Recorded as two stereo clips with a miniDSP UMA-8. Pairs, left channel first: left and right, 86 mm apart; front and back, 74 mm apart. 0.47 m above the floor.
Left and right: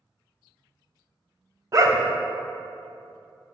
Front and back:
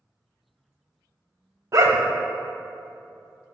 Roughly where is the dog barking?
Behind right.